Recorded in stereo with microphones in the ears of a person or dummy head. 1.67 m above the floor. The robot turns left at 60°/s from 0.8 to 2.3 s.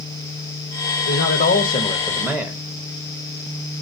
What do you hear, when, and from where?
1.1 s a man speaking: 80° left, 1.1 m; by 2.6 s 5° left, 1.1 m